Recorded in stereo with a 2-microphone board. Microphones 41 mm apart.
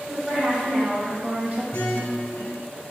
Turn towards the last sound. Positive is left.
turn(degrees=75)  # may be behind; listen again after turning